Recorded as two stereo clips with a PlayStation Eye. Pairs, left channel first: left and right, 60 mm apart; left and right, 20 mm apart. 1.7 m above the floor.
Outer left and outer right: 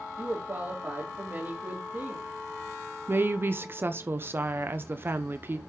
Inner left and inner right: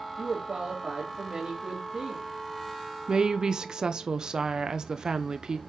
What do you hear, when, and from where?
0.2 s a woman speaking: 45° right (ahead or behind), 3.5 m
3.1 s a woman speaking: 35° right (ahead or behind), 0.6 m